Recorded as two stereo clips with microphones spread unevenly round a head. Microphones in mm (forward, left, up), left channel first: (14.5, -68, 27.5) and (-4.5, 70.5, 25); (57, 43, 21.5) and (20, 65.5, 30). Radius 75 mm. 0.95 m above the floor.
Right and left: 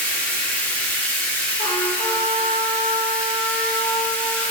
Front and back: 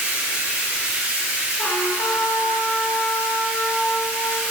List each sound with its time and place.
0.0 s running water: 165° right, 1.2 m
1.6 s a trumpet: 20° right, 1.1 m